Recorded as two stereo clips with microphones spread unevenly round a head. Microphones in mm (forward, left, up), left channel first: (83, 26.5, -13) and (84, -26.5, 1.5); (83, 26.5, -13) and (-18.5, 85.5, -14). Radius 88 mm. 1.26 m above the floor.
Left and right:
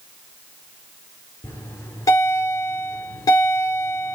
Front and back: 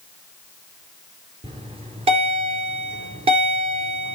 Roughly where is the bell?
Behind left.